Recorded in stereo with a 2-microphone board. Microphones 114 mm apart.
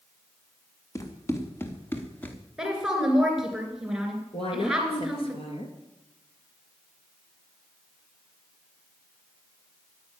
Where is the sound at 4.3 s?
55° left (ahead or behind), 3.5 m.